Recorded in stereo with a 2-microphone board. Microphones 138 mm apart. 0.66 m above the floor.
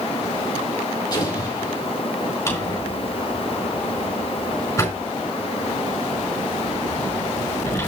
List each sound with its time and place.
1.1 s an explosion: 30° left (ahead or behind), 5.5 m
2.5 s a drawer: 20° left (ahead or behind), 5 m